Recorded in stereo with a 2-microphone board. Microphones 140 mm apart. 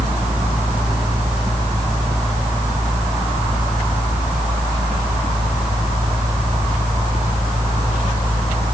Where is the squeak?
No squeak in this recording.